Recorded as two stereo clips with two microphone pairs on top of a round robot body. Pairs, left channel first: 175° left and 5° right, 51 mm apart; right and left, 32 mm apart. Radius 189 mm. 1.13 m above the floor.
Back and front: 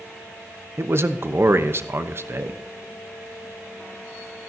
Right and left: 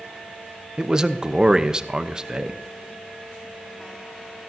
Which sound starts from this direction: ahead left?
A man speaking, at 0.8 s.